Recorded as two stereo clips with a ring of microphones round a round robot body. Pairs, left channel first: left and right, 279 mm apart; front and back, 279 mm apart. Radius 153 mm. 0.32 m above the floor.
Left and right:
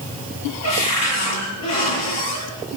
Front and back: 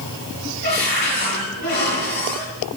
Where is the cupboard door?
60° left, 9 m.